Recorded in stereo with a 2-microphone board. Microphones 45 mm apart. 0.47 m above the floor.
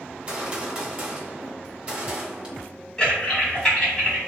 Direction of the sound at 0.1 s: 30° right (ahead or behind).